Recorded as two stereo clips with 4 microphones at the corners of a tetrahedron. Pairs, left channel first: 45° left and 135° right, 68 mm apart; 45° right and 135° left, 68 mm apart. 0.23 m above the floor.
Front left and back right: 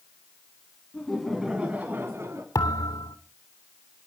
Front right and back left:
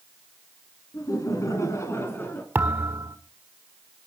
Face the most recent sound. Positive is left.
turn(degrees=70)